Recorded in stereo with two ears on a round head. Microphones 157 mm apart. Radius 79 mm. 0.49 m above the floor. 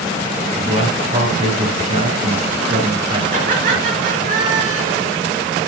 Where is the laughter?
50° right (ahead or behind), 6.5 m.